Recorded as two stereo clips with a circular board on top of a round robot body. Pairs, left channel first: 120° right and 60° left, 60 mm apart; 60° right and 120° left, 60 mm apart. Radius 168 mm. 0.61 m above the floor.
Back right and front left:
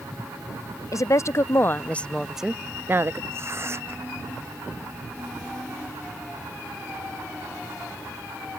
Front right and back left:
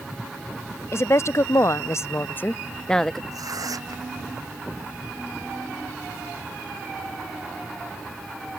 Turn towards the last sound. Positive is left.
turn(degrees=105)